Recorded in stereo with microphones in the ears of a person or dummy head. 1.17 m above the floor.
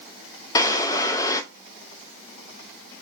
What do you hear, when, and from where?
0.6 s a drawer: 20° left (ahead or behind), 0.6 m